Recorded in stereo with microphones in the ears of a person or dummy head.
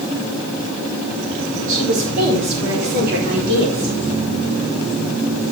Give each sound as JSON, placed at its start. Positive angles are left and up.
{"t": 1.7, "sound": "a woman speaking", "side_deg": -70, "distance_m": 4.5}